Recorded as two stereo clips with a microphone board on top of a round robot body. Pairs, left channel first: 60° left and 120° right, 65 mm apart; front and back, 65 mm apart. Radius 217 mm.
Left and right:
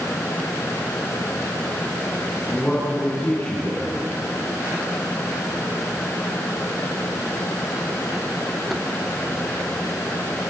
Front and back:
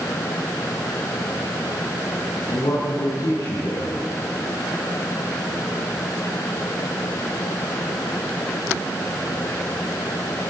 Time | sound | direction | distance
2.5 | a man speaking | 15° right | 7 m